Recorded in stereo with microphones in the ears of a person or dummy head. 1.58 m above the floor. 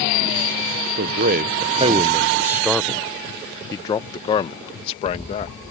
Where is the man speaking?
60° right (ahead or behind); by 5.5 s 40° left (ahead or behind).